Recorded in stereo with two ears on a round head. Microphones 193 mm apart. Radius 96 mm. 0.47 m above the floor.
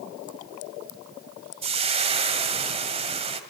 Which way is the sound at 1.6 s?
30° right (ahead or behind).